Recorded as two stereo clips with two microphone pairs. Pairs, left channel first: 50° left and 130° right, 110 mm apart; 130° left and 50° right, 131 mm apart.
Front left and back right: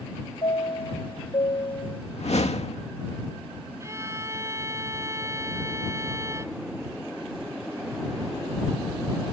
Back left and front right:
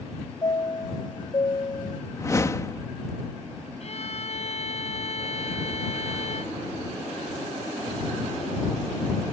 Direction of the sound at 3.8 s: 165° left.